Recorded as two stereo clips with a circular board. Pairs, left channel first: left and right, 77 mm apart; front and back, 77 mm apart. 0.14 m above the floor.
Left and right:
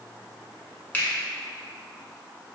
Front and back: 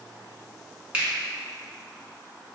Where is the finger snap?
125° left, 0.9 m.